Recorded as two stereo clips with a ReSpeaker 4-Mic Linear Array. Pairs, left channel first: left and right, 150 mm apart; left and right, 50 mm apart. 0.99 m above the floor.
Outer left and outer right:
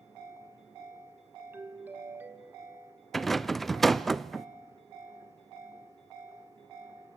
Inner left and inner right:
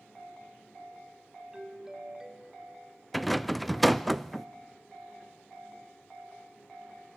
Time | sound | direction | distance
1.5 | a doorbell | 15° right (ahead or behind) | 1.8 m
3.1 | a rattle | centre (ahead or behind) | 0.6 m